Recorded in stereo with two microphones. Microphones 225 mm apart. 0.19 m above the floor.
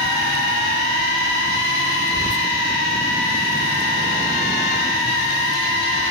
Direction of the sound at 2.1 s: 15° right (ahead or behind).